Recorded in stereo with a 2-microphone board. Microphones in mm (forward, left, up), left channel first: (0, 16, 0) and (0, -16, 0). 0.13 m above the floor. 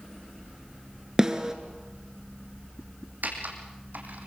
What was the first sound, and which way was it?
A snare drum, 20° right (ahead or behind).